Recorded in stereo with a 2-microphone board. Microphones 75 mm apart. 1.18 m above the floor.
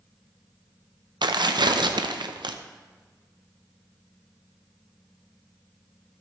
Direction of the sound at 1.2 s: 80° right.